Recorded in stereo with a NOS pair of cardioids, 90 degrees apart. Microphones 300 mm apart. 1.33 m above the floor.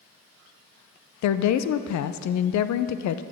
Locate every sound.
1.2 s a woman speaking: 65° left, 0.6 m